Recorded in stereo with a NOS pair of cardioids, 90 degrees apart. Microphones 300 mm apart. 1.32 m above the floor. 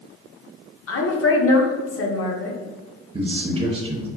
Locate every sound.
0.9 s a woman speaking: 50° left, 0.9 m
3.1 s a man speaking: 20° right, 0.6 m